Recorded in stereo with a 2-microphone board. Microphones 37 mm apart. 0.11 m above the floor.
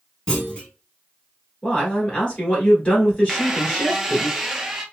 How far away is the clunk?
About 1.1 m.